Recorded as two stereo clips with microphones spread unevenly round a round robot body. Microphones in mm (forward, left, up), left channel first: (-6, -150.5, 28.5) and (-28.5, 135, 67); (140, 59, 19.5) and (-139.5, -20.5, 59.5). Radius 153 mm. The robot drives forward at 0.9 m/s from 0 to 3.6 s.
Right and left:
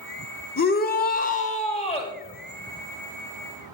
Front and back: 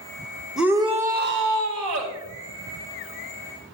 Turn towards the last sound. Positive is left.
turn(degrees=-165)